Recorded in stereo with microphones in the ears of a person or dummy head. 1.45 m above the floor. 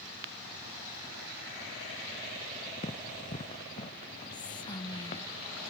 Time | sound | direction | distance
2.8 | running footsteps | 30° left (ahead or behind) | ?
4.3 | whispering | 20° left (ahead or behind) | ?